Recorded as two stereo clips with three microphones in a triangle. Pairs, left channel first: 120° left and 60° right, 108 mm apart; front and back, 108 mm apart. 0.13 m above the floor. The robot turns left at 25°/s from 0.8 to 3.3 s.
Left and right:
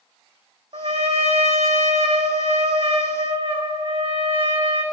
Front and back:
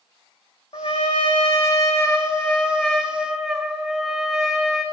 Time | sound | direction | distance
0.7 | a trumpet | 35° right | 1.5 m